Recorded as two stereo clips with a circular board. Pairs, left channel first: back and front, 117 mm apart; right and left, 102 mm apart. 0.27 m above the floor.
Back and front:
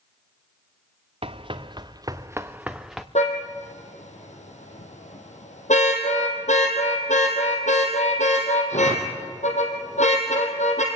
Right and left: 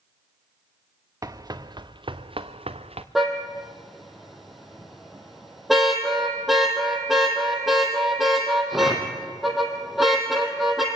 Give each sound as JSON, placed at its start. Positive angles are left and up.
{"t": 1.2, "sound": "running footsteps", "azimuth_deg": 35, "distance_m": 1.5}
{"t": 3.1, "sound": "a car horn", "azimuth_deg": 180, "distance_m": 3.5}